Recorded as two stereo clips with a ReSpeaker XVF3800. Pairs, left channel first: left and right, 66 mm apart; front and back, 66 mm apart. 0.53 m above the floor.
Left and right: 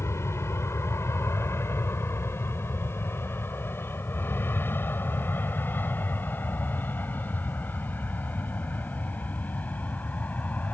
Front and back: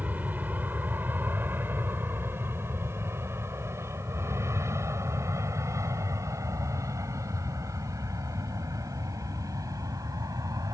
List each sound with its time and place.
0.0 s an aircraft: 120° left; by 10.7 s 155° left